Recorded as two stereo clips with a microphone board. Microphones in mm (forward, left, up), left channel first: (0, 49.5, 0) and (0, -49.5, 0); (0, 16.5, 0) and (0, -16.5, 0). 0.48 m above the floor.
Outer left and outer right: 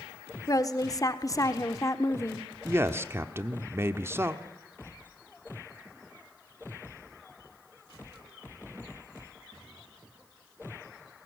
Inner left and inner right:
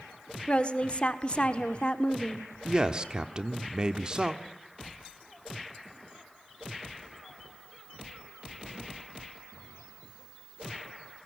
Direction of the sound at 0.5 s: 35° left (ahead or behind).